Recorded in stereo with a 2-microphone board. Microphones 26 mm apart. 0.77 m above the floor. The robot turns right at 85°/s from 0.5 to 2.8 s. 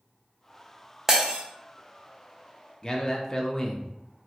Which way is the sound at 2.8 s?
25° left (ahead or behind).